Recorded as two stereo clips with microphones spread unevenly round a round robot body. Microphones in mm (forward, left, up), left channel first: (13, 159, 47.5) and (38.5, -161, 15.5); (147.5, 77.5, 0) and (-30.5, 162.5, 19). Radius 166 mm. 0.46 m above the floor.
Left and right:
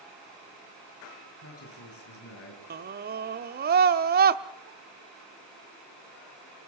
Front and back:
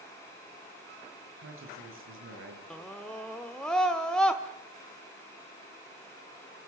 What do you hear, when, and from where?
1.4 s a man speaking: 145° left, 7.5 m
2.7 s a scream: 100° right, 0.9 m